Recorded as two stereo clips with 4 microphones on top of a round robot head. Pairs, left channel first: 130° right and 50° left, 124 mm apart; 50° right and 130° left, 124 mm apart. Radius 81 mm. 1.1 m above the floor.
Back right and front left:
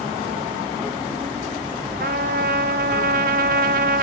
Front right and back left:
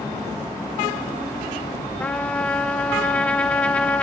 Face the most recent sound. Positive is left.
turn(degrees=30)